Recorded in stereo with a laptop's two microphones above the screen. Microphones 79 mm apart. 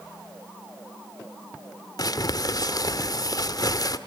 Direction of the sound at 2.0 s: 50° left (ahead or behind).